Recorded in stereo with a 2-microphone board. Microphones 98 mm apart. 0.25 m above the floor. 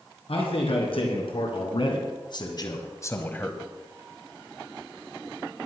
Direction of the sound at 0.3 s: 70° left (ahead or behind).